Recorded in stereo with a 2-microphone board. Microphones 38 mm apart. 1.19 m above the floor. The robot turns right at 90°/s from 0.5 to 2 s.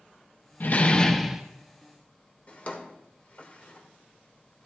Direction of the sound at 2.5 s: 40° left (ahead or behind).